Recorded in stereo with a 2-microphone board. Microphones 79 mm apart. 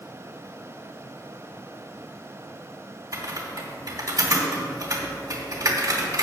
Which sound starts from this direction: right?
Typing on a keyboard, at 3.1 s.